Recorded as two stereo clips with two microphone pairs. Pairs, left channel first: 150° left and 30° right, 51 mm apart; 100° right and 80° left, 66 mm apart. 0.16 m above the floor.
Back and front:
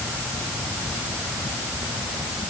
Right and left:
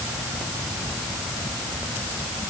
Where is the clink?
I don't hear a clink.